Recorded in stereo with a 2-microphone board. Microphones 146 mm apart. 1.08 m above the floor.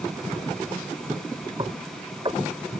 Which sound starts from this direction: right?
Knocking, at 1.6 s.